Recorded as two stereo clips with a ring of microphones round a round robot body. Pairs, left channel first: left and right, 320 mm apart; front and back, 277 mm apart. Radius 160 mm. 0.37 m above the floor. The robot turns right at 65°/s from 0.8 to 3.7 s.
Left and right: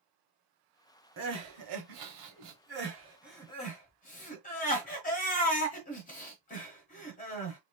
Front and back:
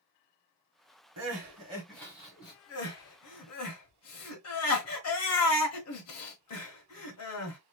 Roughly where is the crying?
Behind right.